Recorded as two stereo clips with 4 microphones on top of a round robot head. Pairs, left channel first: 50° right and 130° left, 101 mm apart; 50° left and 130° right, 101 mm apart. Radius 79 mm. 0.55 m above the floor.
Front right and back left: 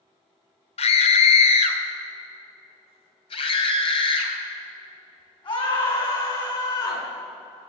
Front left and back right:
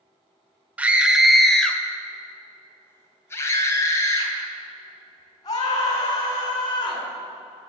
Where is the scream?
55° right, 1.8 m; by 7.0 s straight ahead, 6 m.